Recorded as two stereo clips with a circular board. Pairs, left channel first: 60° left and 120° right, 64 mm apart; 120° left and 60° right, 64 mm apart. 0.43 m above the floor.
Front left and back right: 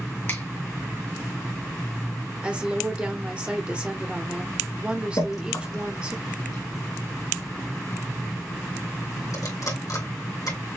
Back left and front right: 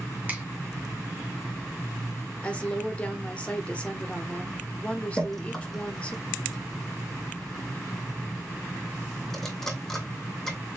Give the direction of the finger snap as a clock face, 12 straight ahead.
12 o'clock.